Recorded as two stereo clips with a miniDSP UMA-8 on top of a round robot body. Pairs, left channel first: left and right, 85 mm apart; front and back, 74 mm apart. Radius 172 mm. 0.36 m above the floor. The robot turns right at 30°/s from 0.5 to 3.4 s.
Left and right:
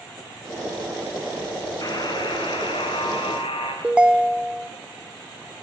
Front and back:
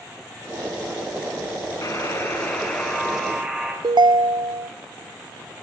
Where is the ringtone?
170° right, 0.6 m.